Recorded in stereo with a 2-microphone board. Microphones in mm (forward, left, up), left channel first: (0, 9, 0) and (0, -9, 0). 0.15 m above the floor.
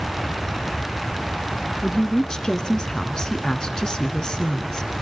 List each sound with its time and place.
1.8 s a woman speaking: 35° left (ahead or behind), 1.6 m